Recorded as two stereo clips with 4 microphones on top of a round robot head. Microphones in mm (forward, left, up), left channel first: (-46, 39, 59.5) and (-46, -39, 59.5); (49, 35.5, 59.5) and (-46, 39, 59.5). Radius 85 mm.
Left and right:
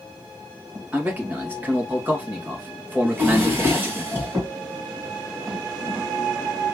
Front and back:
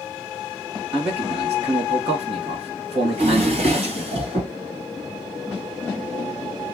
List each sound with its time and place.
0.9 s a man speaking: 160° right, 2.5 m
3.0 s a drawer: 150° right, 3 m